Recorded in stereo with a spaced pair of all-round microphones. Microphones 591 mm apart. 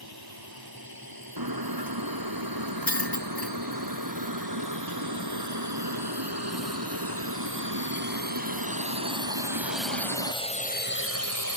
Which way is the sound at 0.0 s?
40° right (ahead or behind).